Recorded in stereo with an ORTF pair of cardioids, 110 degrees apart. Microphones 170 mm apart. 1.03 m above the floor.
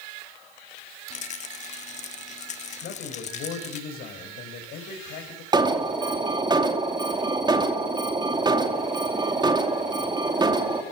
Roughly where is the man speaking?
Left.